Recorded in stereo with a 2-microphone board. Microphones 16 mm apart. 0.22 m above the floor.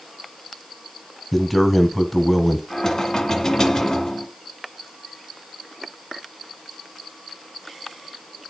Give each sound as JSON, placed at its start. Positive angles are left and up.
{"t": 1.3, "sound": "a man speaking", "side_deg": 5, "distance_m": 1.5}
{"t": 2.7, "sound": "knocking", "side_deg": 40, "distance_m": 1.9}